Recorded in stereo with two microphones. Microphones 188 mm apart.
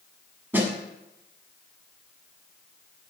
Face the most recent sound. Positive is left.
turn(degrees=-10)  # may be behind; listen again after turning